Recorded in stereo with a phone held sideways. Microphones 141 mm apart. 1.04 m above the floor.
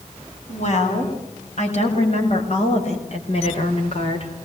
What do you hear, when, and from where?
0.5 s a woman speaking: 55° left (ahead or behind), 9.5 m; by 4.3 s 45° left (ahead or behind), 4 m